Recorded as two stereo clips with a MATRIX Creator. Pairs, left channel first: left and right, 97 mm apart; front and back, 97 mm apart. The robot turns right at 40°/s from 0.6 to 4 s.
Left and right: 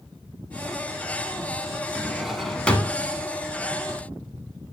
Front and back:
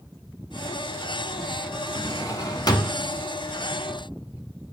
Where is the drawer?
15° right, 0.8 m; by 3.0 s 25° left, 0.8 m.